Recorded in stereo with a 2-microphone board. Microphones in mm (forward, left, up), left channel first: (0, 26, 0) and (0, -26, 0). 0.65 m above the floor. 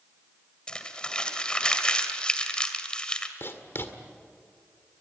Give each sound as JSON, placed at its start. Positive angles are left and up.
{"t": 0.7, "sound": "crumpling", "side_deg": 20, "distance_m": 2.0}
{"t": 3.4, "sound": "writing", "side_deg": 55, "distance_m": 1.9}